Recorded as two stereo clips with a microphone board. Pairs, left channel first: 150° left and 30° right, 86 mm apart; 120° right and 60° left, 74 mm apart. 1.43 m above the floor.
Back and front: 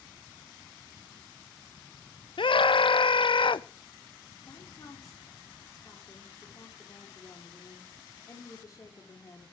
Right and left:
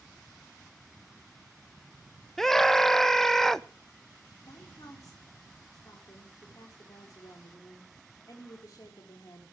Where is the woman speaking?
160° right, 4.5 m.